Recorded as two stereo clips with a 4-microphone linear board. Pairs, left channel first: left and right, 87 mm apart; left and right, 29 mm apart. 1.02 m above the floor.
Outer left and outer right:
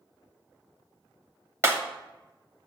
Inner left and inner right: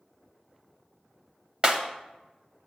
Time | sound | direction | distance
1.6 | breaking glass | 30° right (ahead or behind) | 0.9 m